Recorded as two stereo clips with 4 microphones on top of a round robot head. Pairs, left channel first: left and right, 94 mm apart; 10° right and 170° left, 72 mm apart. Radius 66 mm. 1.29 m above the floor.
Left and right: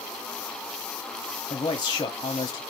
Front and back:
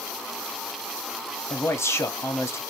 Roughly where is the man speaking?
Ahead left.